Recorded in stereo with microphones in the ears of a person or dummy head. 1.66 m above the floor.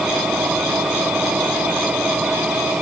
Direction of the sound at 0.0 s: 5° right (ahead or behind).